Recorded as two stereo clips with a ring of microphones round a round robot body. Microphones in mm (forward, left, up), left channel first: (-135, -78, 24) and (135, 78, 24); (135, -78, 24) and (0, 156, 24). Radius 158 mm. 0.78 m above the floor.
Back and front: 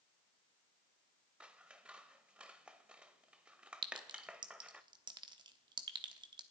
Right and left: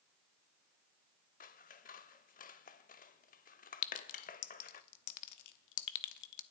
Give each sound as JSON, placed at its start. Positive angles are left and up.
{"t": 1.4, "sound": "scissors", "azimuth_deg": -55, "distance_m": 0.6}
{"t": 3.8, "sound": "a clink", "azimuth_deg": -45, "distance_m": 0.9}